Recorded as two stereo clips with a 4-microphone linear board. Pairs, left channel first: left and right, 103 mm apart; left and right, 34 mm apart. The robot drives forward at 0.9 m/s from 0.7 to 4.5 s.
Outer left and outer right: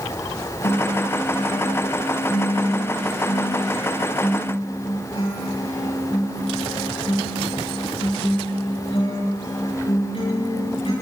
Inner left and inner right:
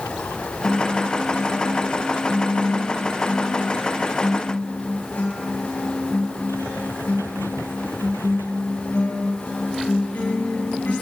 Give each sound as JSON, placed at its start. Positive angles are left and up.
{"t": 0.6, "sound": "a guitar", "side_deg": 75, "distance_m": 9.5}